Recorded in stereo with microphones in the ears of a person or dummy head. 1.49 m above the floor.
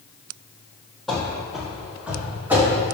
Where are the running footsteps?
5° left (ahead or behind), 2 m; by 2.8 s 10° right (ahead or behind), 4 m.